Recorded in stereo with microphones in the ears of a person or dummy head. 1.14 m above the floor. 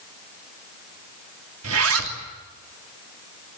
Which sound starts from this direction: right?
A zipper, at 1.6 s.